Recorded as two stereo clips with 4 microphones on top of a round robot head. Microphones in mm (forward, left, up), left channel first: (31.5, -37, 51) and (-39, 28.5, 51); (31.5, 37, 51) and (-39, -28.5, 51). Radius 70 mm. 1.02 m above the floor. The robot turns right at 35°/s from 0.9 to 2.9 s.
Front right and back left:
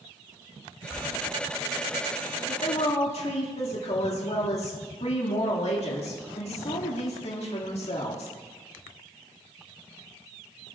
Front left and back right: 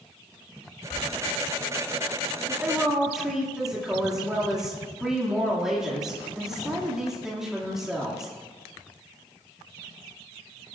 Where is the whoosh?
50° left, 6.5 m.